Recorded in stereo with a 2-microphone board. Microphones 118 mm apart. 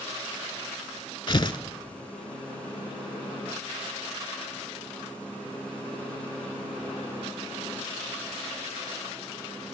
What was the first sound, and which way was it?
Tearing paper, 40° left (ahead or behind).